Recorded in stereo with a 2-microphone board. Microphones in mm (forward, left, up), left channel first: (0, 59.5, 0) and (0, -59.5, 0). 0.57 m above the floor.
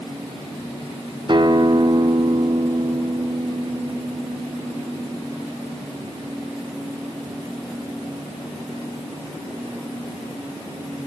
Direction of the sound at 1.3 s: 45° right (ahead or behind).